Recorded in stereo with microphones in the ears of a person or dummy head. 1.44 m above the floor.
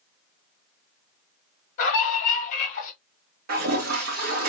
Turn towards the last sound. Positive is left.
turn(degrees=-55)  # may be behind; listen again after turning